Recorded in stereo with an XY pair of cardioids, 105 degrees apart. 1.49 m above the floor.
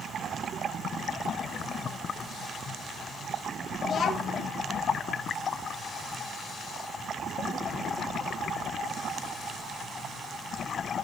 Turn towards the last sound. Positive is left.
turn(degrees=50)